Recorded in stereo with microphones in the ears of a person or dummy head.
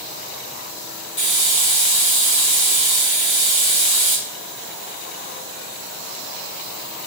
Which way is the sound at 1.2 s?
25° left (ahead or behind).